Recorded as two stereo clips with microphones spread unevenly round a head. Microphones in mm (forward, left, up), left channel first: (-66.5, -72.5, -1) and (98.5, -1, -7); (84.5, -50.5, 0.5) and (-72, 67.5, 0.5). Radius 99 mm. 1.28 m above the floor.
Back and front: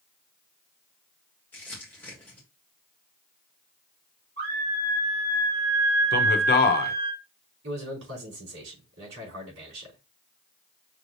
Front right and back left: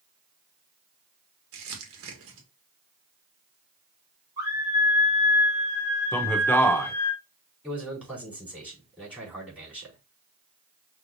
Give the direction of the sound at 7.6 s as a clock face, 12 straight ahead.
10 o'clock.